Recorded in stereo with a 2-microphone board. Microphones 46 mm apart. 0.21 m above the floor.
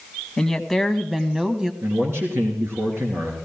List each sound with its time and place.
0.4 s a woman speaking: 10° left (ahead or behind), 1.3 m; by 1.7 s 15° right (ahead or behind), 1.2 m
1.8 s a man speaking: 70° right (ahead or behind), 3 m